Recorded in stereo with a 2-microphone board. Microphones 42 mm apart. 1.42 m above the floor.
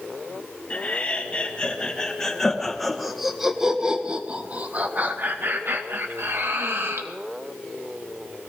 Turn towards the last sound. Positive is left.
turn(degrees=-70)  # may be behind; listen again after turning